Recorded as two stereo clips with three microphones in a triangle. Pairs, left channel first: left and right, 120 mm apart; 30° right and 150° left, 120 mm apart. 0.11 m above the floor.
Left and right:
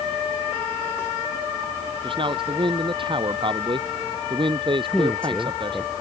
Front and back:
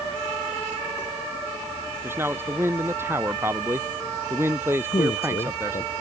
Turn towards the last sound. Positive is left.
turn(degrees=5)